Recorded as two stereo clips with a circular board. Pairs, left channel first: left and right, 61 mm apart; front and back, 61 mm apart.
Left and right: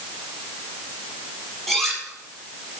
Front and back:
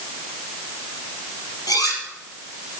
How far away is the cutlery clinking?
About 4.5 m.